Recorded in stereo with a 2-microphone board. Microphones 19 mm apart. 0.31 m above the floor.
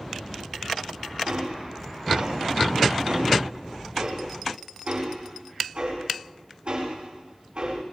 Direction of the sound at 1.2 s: 75° right (ahead or behind).